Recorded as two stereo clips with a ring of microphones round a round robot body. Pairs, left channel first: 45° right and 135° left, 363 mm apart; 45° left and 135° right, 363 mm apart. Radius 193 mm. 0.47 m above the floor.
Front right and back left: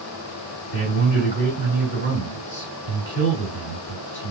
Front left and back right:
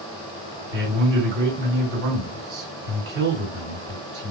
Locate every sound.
0.7 s a man speaking: 100° right, 2 m